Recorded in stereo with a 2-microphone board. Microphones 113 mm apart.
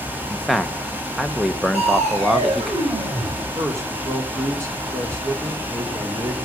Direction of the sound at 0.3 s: Centre (ahead or behind).